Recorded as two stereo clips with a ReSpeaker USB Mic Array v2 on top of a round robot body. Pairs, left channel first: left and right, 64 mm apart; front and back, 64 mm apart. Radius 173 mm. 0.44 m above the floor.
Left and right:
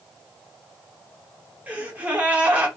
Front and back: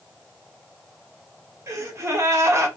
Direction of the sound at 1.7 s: 155° right.